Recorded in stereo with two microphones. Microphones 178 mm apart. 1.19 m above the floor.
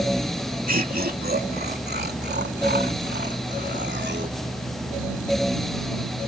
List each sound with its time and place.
0.7 s laughter: 55° right (ahead or behind); by 4.4 s 80° right